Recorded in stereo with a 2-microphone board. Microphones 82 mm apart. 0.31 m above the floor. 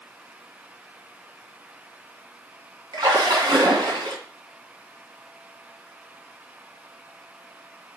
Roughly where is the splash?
Right.